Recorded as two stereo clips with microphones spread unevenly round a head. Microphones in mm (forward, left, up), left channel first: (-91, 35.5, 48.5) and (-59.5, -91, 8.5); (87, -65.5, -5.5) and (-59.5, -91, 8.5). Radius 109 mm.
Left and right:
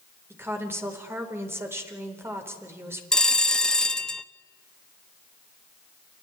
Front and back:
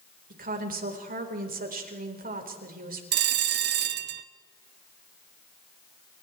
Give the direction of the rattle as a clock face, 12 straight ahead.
I don't hear a rattle.